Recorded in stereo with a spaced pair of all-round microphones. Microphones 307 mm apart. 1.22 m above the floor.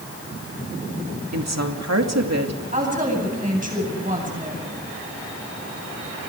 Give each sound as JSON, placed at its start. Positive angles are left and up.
{"t": 1.3, "sound": "a woman speaking", "side_deg": -65, "distance_m": 2.5}
{"t": 2.7, "sound": "a woman speaking", "side_deg": -30, "distance_m": 9.0}